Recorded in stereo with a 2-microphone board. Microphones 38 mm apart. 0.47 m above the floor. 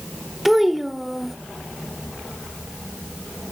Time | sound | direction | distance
0.5 | a child speaking | 5° right (ahead or behind) | 0.9 m